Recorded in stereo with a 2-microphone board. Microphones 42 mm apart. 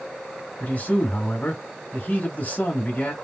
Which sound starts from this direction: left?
A man speaking, at 0.6 s.